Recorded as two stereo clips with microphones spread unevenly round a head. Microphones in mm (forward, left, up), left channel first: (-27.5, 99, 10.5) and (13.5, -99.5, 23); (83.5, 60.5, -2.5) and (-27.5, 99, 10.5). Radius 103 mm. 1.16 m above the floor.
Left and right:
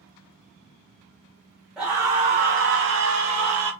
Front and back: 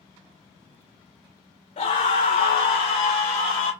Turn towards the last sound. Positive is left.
turn(degrees=-65)